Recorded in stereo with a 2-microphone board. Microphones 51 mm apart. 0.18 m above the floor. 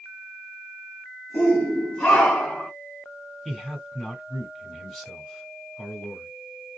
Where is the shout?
30° left (ahead or behind), 1.9 m; by 2.7 s 10° left (ahead or behind), 1.9 m.